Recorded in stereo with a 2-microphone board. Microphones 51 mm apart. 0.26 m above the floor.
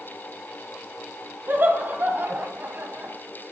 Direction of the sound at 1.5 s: 40° right (ahead or behind).